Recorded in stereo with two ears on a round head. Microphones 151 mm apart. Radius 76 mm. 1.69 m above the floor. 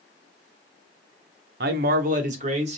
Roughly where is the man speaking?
Right.